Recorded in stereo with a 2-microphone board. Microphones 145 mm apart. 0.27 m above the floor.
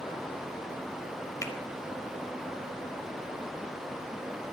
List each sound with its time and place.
1.4 s a finger snap: 20° left (ahead or behind), 0.7 m